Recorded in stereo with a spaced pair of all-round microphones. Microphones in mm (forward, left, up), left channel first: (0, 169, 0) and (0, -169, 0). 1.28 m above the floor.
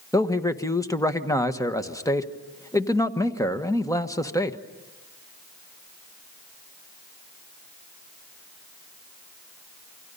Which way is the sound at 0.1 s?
10° left (ahead or behind).